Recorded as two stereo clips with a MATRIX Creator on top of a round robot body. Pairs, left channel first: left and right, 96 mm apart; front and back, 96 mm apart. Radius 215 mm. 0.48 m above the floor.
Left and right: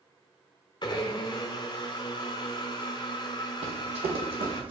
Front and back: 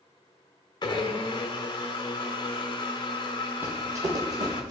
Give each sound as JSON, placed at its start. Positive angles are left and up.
{"t": 0.8, "sound": "a blender", "azimuth_deg": 50, "distance_m": 0.6}
{"t": 3.6, "sound": "running footsteps", "azimuth_deg": -110, "distance_m": 1.2}